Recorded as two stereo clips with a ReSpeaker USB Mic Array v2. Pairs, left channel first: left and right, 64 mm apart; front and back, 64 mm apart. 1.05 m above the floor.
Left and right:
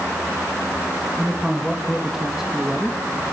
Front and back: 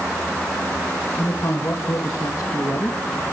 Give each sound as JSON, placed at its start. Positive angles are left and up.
{"t": 1.2, "sound": "a man speaking", "azimuth_deg": -5, "distance_m": 1.8}